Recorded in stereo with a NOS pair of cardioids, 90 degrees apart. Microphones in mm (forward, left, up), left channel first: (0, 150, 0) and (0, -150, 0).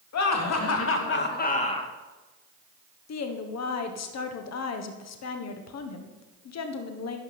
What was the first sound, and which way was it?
Laughter, 65° left.